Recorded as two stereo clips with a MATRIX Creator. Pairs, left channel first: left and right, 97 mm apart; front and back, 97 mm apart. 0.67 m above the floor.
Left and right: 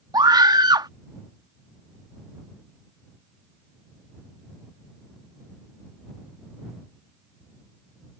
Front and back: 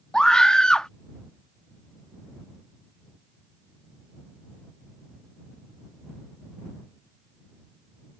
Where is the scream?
80° right.